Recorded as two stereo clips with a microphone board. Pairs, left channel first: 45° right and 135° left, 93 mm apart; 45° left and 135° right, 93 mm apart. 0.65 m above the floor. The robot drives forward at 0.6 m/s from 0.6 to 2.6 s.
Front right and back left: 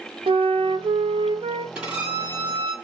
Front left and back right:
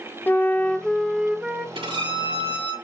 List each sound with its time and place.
0.3 s a flute: 115° left, 0.5 m; by 1.6 s 150° left, 1.0 m
1.8 s a violin: 145° right, 3.5 m; by 2.7 s 150° right, 4 m